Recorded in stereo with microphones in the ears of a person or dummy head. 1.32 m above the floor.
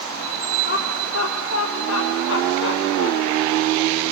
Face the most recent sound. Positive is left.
turn(degrees=60)  # may be behind; listen again after turning